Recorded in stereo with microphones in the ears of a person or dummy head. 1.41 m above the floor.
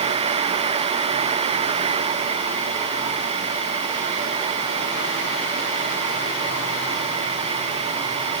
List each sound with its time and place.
Only background noise.